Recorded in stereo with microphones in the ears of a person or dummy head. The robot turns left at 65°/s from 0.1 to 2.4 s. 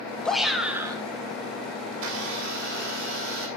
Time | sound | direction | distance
0.2 | a shout | 20° left | 1.8 m
1.9 | a blender | 80° right | 5 m